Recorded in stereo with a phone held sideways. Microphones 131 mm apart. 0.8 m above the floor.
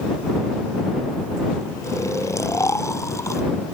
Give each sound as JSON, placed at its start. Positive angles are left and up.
{"t": 1.8, "sound": "snoring", "side_deg": 25}